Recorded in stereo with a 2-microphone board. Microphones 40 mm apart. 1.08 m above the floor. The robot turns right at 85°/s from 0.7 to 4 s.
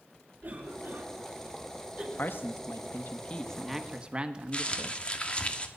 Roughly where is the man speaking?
Ahead left.